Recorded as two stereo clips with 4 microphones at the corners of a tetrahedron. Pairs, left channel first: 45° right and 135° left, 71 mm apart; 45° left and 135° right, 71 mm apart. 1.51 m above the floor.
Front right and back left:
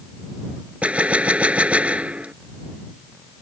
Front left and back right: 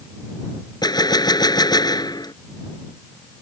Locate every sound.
0.8 s a gunshot: 65° left